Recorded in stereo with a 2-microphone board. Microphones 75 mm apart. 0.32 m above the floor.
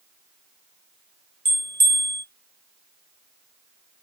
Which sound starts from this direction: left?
A bell, at 1.4 s.